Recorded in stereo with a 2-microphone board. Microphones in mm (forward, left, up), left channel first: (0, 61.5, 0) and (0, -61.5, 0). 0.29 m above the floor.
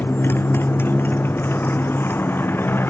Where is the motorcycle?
20° left (ahead or behind).